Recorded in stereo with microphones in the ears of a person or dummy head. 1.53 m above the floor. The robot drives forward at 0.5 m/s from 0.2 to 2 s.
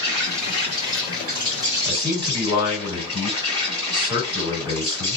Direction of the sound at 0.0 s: 35° right (ahead or behind).